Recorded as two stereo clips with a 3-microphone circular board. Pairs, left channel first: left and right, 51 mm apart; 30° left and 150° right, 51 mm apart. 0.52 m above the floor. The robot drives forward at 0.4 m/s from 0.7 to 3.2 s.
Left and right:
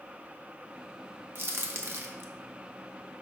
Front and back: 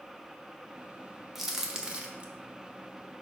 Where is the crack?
65° right, 1.1 m; by 2.3 s 85° right, 1.0 m.